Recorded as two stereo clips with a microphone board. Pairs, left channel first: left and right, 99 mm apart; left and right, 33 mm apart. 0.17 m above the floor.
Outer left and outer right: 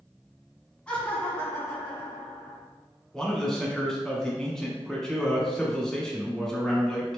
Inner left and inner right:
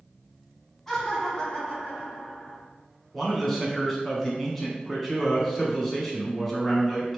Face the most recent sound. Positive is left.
turn(degrees=5)  # may be behind; listen again after turning